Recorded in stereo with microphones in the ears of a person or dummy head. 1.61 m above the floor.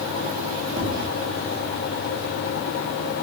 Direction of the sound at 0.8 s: 35° right (ahead or behind).